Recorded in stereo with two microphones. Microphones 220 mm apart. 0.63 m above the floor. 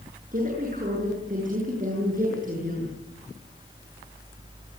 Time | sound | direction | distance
0.3 | a woman speaking | 40° right (ahead or behind) | 9.5 m